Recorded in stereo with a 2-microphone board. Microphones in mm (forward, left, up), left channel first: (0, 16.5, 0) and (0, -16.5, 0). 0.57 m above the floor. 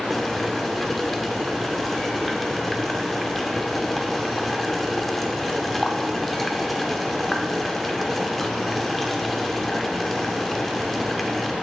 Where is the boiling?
5° left (ahead or behind), 0.6 m.